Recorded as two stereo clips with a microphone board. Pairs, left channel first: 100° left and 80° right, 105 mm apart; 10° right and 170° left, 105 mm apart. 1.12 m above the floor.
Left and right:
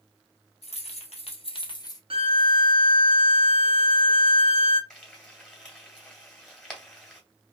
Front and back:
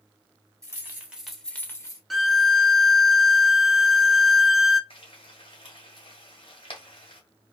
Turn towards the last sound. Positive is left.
turn(degrees=15)